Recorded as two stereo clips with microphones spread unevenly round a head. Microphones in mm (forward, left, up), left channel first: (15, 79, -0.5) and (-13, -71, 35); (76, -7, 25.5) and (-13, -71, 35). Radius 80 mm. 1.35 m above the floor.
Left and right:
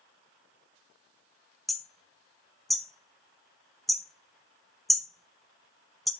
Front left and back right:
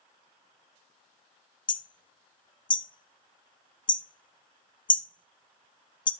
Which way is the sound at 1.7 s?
15° right.